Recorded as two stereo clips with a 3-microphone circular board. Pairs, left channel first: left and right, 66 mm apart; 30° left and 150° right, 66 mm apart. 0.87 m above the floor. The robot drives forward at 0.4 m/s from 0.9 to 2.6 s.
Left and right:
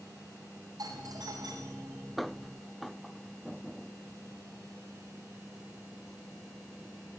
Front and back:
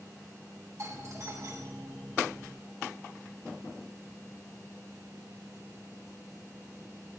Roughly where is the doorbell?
Right.